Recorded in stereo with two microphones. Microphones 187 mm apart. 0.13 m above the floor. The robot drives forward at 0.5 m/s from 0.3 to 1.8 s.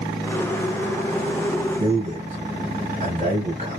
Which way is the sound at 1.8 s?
35° right (ahead or behind).